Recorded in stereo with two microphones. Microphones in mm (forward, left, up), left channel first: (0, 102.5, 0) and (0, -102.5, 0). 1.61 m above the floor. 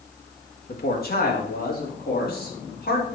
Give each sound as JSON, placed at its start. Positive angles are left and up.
{"t": 0.7, "sound": "a man speaking", "side_deg": 45, "distance_m": 2.5}